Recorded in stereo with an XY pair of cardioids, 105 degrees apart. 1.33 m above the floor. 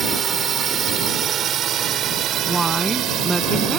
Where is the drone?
45° right; by 3.8 s 80° right.